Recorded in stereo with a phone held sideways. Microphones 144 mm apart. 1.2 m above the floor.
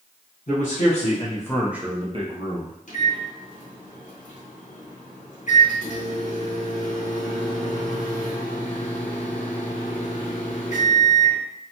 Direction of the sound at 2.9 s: 60° left (ahead or behind).